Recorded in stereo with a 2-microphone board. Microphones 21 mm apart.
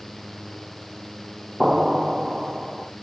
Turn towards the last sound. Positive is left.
turn(degrees=-10)  # may be behind; listen again after turning